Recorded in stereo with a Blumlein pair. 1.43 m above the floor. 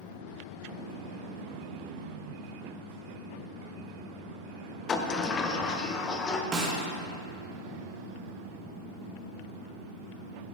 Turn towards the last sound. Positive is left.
turn(degrees=-15)